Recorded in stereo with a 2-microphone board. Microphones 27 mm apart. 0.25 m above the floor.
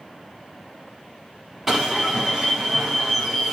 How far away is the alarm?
About 1.4 m.